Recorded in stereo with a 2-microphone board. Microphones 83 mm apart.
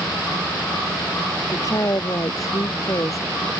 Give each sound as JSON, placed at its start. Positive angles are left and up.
{"t": 1.5, "sound": "a woman speaking", "side_deg": 45}